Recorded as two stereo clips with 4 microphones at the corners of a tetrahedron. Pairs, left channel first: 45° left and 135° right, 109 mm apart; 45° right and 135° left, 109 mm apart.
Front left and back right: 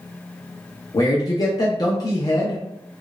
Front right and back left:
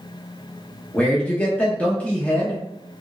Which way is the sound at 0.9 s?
25° left.